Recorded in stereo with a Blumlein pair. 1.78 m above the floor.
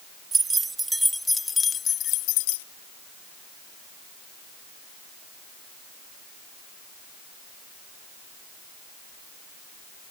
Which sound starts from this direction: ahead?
Keys jangling, at 0.3 s.